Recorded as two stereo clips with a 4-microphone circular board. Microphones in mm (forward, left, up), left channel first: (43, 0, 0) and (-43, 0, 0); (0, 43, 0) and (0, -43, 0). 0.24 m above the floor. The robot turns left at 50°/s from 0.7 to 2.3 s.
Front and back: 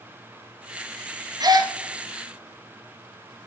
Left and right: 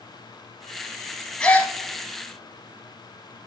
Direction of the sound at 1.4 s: 165° left.